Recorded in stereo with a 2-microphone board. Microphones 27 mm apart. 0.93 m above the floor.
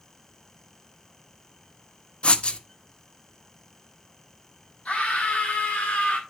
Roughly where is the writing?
Left.